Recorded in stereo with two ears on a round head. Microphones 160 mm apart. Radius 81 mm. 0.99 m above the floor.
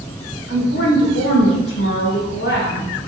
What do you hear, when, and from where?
0.5 s a woman speaking: 65° left (ahead or behind), 1.5 m